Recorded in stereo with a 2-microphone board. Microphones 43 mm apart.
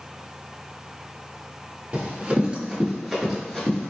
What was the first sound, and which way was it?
Running footsteps, 35° right (ahead or behind).